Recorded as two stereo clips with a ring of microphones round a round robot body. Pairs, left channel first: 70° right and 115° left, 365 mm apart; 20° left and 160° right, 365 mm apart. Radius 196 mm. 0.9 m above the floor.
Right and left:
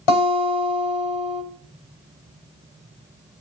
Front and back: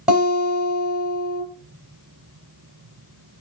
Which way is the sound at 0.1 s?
70° right.